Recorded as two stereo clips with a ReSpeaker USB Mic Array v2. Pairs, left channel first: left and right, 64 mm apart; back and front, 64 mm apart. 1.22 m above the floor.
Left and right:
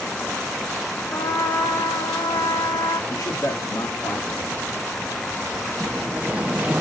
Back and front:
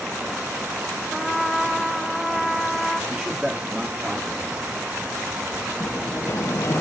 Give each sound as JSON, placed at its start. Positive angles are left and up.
{"t": 1.1, "sound": "a trumpet", "azimuth_deg": 90, "distance_m": 1.1}
{"t": 3.1, "sound": "a man speaking", "azimuth_deg": 75, "distance_m": 2.0}
{"t": 5.8, "sound": "a sliding door", "azimuth_deg": -155, "distance_m": 0.6}